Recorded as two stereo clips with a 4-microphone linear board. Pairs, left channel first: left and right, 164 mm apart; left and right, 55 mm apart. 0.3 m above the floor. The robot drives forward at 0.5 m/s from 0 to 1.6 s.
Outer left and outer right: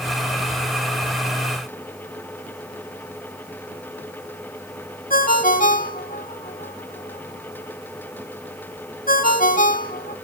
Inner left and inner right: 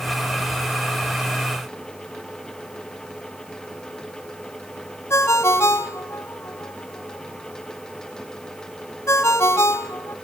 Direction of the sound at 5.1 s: 55° left (ahead or behind).